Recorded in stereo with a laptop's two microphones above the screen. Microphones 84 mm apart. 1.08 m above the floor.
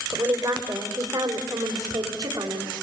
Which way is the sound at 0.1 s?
45° right (ahead or behind).